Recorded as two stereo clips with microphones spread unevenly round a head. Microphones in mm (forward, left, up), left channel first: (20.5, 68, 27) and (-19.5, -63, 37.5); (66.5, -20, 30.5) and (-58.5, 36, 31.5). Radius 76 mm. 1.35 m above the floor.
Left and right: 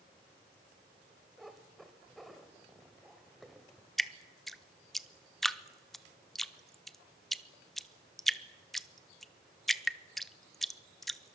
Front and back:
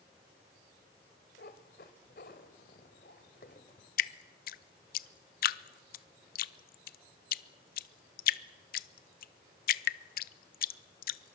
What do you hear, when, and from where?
1.4 s a cat meowing: 20° right, 1.6 m
4.0 s dripping: 15° right, 0.6 m